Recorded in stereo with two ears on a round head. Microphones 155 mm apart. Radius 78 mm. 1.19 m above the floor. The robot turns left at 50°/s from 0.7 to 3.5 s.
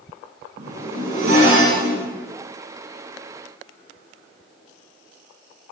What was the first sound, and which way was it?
A zipper, 50° right.